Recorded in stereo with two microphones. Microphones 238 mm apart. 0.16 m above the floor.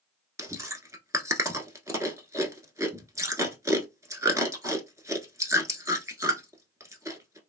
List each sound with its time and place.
0.4 s chewing: 15° right (ahead or behind), 0.7 m